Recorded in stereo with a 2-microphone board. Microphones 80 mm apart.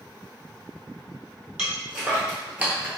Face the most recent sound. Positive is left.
turn(degrees=-15)  # may be behind; listen again after turning